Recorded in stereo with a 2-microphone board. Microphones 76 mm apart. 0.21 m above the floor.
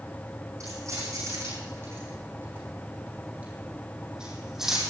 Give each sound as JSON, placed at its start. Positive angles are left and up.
{"t": 0.6, "sound": "keys jangling", "side_deg": -40, "distance_m": 7.5}